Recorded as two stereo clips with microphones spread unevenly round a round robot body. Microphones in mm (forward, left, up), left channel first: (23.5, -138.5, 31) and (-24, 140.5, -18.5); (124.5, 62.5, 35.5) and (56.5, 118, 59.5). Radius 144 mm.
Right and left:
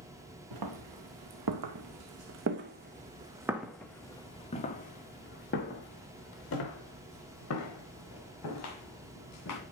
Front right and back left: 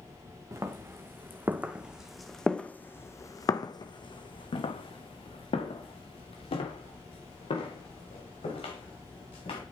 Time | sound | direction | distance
0.5 | footsteps | 85° left | 1.8 m